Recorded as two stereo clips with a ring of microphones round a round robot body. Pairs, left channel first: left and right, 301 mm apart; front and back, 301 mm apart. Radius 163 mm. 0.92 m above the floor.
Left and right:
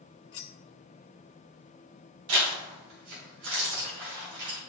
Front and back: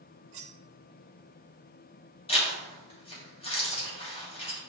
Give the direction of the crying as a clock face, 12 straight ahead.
No crying in this recording.